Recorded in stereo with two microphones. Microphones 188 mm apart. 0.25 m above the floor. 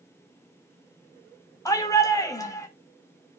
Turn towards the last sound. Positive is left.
turn(degrees=15)  # may be behind; listen again after turning